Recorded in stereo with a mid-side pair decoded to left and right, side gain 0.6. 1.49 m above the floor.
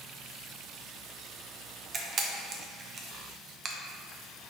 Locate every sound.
1.9 s a camera shutter: 40° right, 0.7 m